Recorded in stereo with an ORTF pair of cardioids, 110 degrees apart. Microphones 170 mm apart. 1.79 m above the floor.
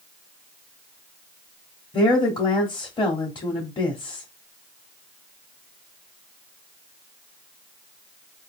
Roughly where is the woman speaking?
Ahead left.